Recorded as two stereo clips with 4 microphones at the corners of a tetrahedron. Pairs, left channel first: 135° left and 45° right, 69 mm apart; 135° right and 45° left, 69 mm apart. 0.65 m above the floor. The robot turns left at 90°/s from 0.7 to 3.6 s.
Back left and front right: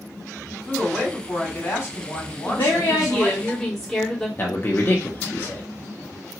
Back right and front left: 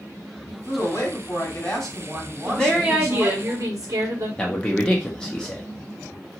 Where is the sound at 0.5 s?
115° right, 2 m; by 3.5 s straight ahead, 2 m.